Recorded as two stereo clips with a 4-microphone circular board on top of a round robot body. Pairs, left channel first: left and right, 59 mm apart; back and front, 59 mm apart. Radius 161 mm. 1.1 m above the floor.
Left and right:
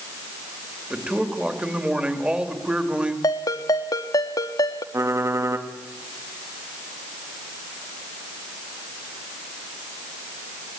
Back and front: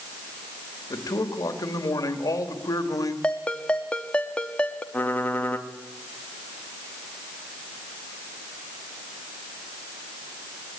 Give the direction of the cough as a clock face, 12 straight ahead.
No cough in this recording.